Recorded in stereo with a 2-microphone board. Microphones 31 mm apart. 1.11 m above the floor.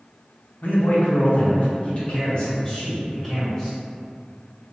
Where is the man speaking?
80° left, 0.9 m; by 3.8 s 10° left (ahead or behind), 1.5 m.